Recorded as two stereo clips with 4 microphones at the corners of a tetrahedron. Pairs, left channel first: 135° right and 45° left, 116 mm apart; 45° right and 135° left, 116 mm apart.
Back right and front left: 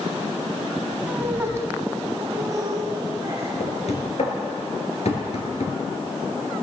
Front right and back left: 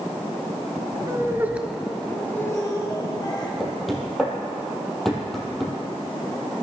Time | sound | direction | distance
1.1 | laughter | 110° left | 1.2 m
3.6 | knocking | 135° right | 2.5 m